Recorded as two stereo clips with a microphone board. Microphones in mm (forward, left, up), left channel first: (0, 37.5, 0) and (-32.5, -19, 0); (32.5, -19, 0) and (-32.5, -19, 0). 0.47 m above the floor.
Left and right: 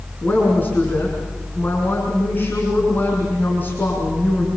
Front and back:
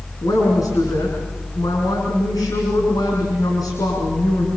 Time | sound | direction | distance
0.2 | a woman speaking | straight ahead | 6 m